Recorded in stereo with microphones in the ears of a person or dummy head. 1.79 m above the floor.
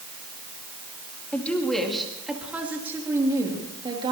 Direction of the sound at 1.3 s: 10° left (ahead or behind).